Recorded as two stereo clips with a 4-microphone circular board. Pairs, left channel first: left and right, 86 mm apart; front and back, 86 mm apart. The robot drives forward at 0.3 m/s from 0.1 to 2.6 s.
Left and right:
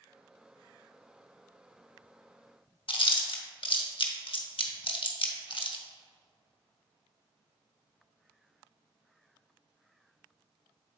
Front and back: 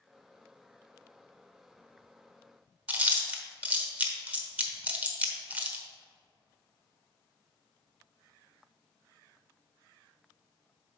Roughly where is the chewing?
Left.